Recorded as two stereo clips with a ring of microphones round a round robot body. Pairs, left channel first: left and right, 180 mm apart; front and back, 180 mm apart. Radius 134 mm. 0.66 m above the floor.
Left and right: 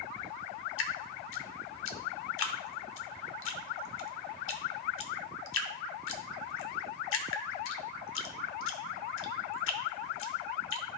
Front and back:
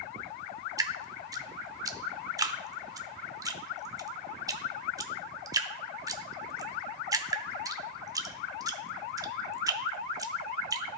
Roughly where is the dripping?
Left.